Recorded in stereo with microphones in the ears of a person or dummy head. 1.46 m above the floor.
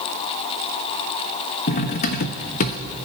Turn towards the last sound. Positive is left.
turn(degrees=45)  # may be behind; listen again after turning